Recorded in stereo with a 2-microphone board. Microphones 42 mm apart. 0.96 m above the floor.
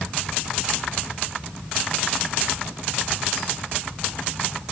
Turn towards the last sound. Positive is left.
No sound to turn to.